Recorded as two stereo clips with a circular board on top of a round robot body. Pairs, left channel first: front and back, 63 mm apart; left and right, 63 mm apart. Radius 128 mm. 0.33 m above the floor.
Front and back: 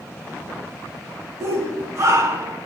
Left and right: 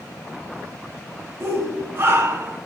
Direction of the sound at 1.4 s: 140° right.